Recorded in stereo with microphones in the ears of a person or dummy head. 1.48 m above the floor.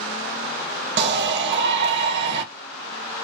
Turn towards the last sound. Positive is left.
turn(degrees=-60)  # may be behind; listen again after turning